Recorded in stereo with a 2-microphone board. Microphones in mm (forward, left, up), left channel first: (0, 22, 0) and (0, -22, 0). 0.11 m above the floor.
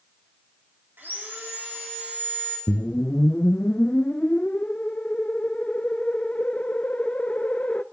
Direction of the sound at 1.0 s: 55° right (ahead or behind).